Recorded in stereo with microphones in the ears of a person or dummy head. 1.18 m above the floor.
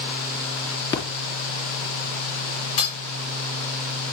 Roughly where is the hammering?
Left.